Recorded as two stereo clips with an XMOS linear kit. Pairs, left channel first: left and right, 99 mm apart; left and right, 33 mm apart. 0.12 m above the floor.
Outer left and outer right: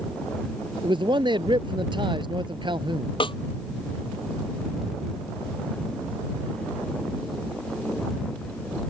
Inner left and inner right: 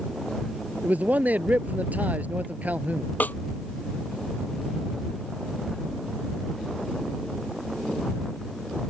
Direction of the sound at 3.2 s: 65° left (ahead or behind).